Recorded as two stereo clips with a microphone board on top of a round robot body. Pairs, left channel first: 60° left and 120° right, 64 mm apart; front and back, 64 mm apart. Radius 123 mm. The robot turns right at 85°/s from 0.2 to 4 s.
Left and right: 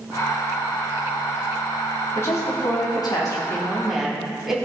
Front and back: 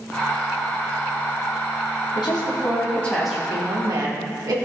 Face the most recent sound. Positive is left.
turn(degrees=155)